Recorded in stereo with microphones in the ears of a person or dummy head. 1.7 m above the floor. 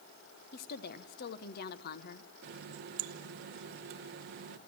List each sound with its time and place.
0.5 s a woman speaking: 55° left (ahead or behind), 1.2 m
2.4 s a running tap: 45° right (ahead or behind), 0.9 m